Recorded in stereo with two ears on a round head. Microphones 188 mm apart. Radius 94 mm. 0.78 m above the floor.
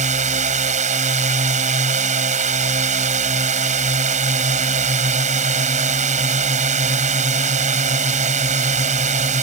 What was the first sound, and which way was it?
A drone, 35° right (ahead or behind).